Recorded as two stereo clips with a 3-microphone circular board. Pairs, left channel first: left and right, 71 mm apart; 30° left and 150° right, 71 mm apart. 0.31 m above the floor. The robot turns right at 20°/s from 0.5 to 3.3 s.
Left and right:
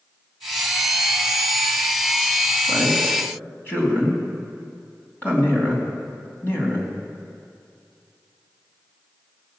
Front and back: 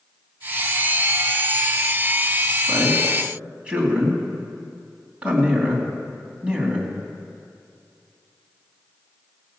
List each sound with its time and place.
2.7 s a man speaking: 130° left, 2.5 m; by 6.9 s 140° left, 2.5 m